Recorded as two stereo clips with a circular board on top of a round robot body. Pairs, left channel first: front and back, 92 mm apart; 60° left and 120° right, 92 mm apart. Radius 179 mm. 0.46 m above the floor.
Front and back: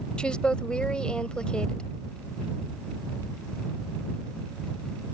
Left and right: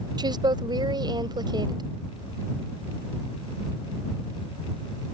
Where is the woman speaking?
80° right.